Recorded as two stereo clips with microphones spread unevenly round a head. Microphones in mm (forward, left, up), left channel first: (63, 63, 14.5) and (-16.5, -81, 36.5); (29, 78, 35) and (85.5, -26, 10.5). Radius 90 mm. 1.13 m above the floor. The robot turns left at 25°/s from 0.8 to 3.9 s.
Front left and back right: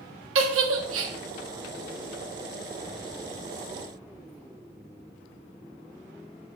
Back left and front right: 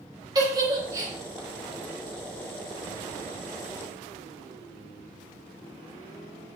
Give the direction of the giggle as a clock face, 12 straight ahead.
4 o'clock.